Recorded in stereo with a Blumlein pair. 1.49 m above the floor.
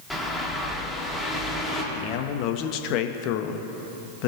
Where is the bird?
Straight ahead, 1.4 m.